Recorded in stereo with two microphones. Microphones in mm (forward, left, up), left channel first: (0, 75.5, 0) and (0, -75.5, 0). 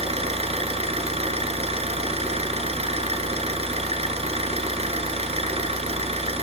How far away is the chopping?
No chopping in this recording.